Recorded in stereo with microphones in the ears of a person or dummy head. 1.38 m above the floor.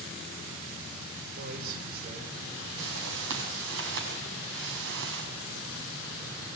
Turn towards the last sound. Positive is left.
turn(degrees=-75)  # may be behind; listen again after turning